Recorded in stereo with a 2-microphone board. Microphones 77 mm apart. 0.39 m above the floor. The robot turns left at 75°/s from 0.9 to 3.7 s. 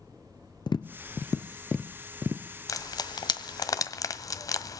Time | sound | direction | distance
0.7 | tapping | 70° left (ahead or behind) | 1.3 m
2.7 | frying | 45° left (ahead or behind) | 1.4 m